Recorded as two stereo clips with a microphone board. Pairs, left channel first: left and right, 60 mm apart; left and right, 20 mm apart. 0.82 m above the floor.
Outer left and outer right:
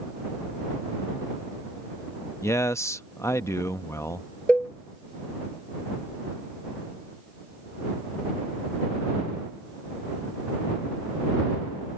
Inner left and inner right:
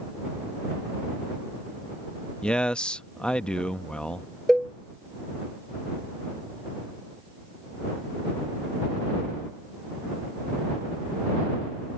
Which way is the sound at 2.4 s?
55° left (ahead or behind).